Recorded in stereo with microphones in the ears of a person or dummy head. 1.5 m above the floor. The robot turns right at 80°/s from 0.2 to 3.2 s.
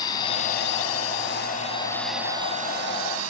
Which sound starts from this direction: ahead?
A drone, at 0.0 s.